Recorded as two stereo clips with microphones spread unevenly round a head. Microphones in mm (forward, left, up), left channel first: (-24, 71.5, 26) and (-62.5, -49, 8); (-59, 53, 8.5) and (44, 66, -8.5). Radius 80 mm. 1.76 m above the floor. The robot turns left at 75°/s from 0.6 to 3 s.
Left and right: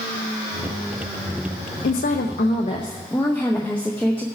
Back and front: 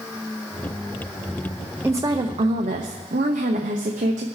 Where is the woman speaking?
80° left, 0.9 m; by 4.2 s 5° right, 0.9 m.